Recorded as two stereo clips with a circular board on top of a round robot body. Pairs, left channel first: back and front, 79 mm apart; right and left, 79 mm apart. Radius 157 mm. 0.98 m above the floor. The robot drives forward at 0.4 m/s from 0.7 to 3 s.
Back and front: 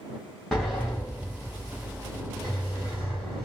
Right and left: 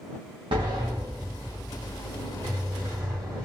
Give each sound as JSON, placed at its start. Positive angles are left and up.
{"t": 0.5, "sound": "a sliding door", "azimuth_deg": 100, "distance_m": 0.9}